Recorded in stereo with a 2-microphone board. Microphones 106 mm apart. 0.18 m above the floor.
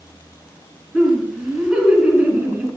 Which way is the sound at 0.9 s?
5° right (ahead or behind).